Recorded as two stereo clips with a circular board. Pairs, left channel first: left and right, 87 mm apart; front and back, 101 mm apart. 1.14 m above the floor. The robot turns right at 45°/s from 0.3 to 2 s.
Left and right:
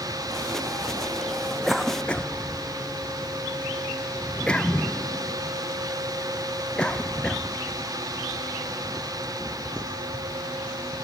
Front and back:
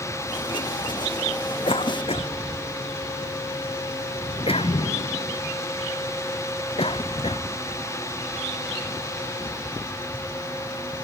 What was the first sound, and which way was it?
A cough, 5° right.